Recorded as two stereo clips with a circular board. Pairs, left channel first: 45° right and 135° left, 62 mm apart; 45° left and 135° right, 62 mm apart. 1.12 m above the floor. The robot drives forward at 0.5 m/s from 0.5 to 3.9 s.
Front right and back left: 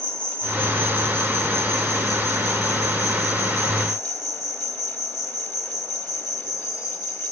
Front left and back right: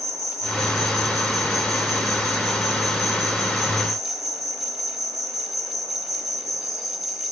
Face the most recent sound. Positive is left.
turn(degrees=-140)